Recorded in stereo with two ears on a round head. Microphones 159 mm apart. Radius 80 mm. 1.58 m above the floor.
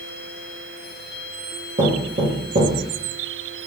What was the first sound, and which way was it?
Knocking, 45° right (ahead or behind).